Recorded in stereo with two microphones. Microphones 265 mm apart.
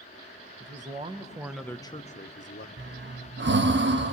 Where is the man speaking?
35° right (ahead or behind), 1.2 m; by 2.7 s 50° left (ahead or behind), 1.0 m.